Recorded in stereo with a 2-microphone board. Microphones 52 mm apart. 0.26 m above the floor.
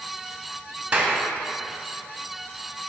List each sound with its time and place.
0.9 s a clap: 25° right (ahead or behind), 1.7 m